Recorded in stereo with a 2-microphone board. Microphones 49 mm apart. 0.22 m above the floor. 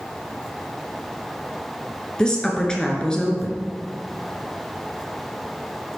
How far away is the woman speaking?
About 2.5 m.